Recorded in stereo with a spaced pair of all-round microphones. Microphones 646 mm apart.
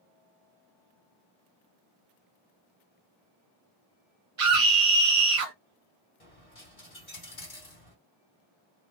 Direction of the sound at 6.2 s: 55° left (ahead or behind).